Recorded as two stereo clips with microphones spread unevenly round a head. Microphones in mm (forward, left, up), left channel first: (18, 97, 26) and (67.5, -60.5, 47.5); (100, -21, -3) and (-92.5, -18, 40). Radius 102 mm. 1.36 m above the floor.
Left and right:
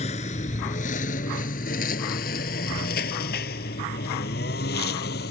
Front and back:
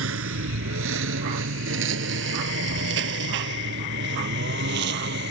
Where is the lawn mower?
165° left; by 5.3 s 145° left.